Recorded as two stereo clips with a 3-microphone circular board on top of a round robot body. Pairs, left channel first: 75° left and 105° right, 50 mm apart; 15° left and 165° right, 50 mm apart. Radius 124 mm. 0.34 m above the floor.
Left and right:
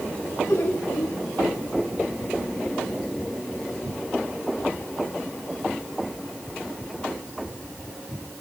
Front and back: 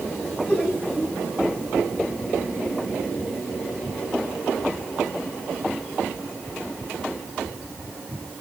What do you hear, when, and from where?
0.5 s laughter: 75° left, 3.5 m